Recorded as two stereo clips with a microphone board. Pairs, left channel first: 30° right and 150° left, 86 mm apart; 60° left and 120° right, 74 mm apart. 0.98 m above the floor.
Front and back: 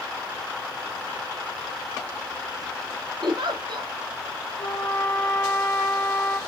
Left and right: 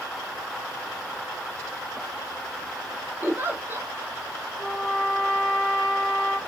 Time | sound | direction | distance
3.2 | a giggle | 175° left | 1.8 m
4.6 | a trumpet | 45° right | 2.5 m